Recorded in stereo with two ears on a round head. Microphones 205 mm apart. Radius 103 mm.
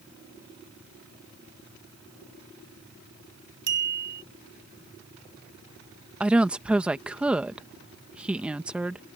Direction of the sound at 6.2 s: 5° right (ahead or behind).